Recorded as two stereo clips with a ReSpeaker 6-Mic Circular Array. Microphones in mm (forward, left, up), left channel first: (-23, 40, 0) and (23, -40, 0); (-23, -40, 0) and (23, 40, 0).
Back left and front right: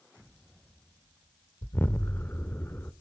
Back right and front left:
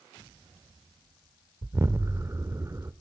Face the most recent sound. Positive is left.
turn(degrees=75)